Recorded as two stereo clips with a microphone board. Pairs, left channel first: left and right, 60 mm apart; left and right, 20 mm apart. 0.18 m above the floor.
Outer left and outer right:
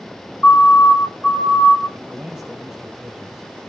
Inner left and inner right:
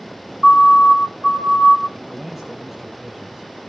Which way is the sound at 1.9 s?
10° right (ahead or behind).